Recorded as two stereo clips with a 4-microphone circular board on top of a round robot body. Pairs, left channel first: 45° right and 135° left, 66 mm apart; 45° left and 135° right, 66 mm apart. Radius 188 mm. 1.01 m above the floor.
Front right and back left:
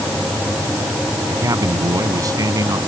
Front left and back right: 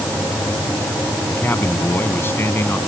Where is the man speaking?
100° left.